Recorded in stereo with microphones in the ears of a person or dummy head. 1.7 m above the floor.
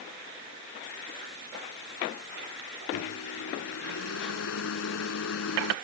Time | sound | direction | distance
2.9 | a microwave | 85° left | ?